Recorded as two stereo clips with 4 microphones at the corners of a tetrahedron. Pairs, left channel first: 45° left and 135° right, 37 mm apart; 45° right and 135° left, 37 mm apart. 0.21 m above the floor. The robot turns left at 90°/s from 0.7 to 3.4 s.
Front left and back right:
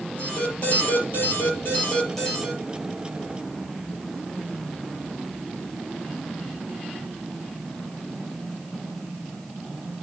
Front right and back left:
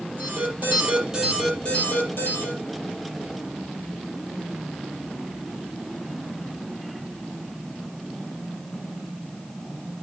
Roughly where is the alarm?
Left.